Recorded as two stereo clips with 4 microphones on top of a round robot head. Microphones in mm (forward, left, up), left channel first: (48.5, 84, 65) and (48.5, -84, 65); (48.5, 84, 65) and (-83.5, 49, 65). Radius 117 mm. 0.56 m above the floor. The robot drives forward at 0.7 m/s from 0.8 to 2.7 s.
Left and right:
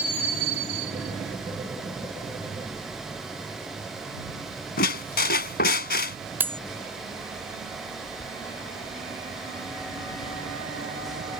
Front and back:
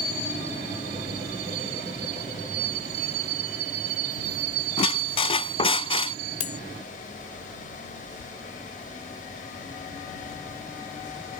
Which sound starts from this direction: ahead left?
A squeak, at 4.8 s.